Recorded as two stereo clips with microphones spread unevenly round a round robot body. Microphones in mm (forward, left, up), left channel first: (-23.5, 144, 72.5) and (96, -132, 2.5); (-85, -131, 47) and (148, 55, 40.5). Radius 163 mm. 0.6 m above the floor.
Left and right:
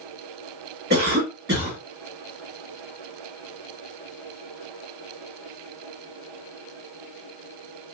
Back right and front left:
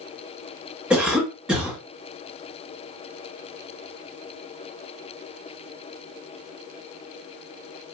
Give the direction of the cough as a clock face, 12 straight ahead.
2 o'clock.